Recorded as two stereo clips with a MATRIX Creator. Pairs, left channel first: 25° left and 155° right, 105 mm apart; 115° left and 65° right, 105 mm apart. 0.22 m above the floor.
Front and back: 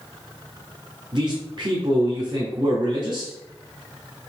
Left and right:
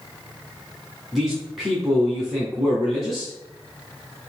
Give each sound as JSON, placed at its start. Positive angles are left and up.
{"t": 1.1, "sound": "a man speaking", "azimuth_deg": -155, "distance_m": 2.0}